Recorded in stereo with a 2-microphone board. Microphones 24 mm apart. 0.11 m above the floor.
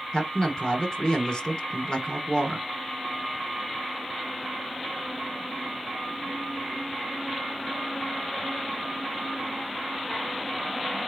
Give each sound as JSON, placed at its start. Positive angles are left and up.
{"t": 0.1, "sound": "a man speaking", "side_deg": 30, "distance_m": 1.5}